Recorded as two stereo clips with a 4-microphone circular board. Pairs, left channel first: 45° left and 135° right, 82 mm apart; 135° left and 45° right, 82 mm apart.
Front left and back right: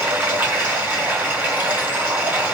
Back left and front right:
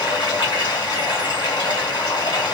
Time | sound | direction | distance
0.0 | running water | 155° left | 2 m